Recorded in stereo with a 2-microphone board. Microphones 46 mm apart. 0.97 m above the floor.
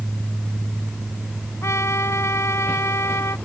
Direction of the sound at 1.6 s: 80° left.